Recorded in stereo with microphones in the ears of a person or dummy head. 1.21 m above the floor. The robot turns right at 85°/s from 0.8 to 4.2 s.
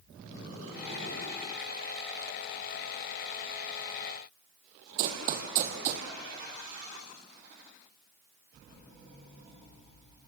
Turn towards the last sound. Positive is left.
turn(degrees=-40)  # may be behind; listen again after turning